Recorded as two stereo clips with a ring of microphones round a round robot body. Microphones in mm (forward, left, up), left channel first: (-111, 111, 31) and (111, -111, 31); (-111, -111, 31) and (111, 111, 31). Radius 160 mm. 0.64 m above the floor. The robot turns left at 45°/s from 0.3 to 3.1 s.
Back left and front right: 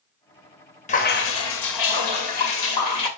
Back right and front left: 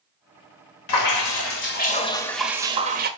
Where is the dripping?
155° right, 2 m; by 3.1 s 105° left, 2 m.